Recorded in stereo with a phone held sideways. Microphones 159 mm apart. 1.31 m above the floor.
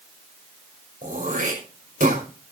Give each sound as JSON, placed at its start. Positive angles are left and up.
{"t": 1.0, "sound": "throat clearing", "side_deg": -55, "distance_m": 5.5}